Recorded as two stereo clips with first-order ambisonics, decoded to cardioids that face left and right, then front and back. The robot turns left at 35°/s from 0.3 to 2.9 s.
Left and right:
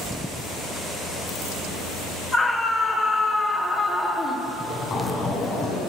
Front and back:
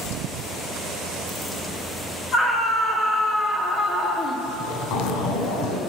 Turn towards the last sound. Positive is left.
turn(degrees=20)